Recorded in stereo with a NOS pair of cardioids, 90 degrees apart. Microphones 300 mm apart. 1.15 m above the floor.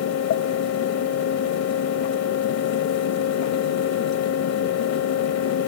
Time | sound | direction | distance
0.0 | a fan | 60° left | 0.8 m